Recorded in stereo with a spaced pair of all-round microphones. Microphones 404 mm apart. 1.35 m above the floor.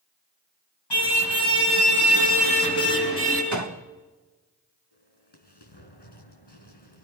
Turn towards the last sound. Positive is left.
turn(degrees=75)  # may be behind; listen again after turning